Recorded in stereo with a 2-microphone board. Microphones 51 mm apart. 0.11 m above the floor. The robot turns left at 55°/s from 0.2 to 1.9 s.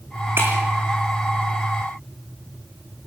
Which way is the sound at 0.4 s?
50° right (ahead or behind).